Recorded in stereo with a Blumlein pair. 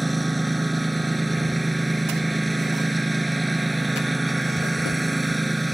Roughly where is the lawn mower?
Ahead.